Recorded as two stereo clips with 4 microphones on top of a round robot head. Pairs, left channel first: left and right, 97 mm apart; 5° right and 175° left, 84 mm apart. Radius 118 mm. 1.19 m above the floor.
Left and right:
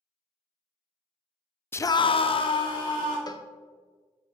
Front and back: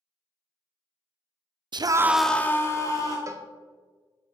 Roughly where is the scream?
Behind left.